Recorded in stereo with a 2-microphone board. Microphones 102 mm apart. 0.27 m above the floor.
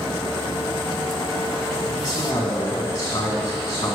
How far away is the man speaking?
About 2 m.